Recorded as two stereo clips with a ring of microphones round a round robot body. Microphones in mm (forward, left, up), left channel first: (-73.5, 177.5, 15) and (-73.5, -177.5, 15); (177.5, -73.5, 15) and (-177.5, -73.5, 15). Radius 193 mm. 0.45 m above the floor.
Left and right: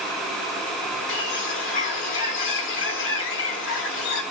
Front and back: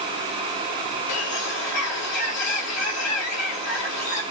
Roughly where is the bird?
Ahead left.